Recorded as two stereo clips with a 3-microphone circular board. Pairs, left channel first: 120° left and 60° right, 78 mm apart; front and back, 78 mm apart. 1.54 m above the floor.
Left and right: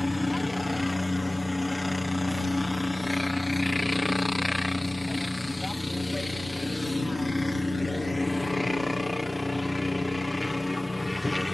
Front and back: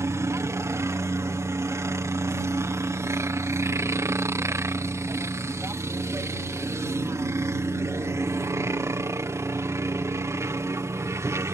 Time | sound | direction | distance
0.0 | a helicopter | 150° right | ?